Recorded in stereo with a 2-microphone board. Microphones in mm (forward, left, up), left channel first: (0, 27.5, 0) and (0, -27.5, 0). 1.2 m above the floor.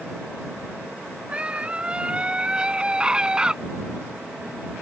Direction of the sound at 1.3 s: 20° right (ahead or behind).